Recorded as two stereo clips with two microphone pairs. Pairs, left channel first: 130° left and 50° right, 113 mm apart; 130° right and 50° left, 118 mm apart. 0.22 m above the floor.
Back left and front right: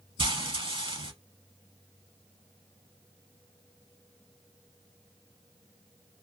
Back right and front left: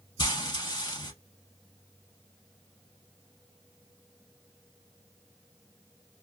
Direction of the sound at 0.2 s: 80° right.